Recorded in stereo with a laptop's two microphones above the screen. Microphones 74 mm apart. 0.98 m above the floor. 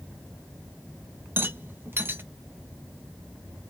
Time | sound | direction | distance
1.4 | a rattle | 30° right (ahead or behind) | 0.7 m